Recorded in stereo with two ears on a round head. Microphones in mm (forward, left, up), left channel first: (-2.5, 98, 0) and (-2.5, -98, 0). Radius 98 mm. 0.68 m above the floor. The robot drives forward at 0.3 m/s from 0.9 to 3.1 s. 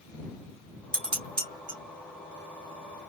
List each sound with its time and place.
0.9 s dishes clattering: 25° right (ahead or behind), 2 m; by 1.8 s 20° right (ahead or behind), 2.5 m